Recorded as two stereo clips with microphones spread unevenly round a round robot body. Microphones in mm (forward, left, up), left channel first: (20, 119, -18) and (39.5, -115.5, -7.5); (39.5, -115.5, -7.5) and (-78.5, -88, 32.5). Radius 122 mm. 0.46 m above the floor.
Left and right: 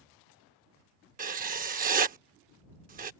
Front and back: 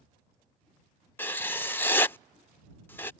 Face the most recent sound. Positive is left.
turn(degrees=-45)